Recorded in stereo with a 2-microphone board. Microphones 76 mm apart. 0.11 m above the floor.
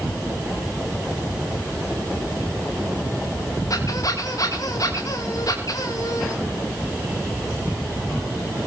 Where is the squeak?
50° left (ahead or behind), 4.5 m.